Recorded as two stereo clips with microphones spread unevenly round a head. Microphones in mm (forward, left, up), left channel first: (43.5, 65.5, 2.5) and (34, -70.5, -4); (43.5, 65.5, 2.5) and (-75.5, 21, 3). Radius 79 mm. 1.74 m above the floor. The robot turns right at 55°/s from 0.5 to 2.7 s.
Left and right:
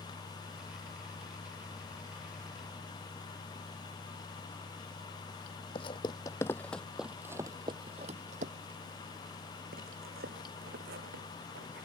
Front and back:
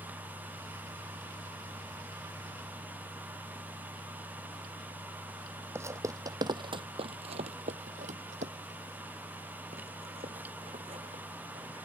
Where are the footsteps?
135° left; by 11.8 s 100° right.